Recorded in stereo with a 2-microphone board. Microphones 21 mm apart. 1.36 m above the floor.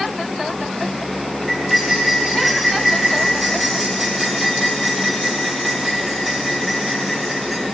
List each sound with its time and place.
1.5 s cutlery clinking: 10° right (ahead or behind), 4 m